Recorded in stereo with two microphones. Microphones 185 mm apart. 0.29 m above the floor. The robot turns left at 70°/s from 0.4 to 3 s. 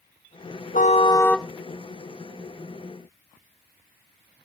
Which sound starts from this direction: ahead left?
A car horn, at 0.7 s.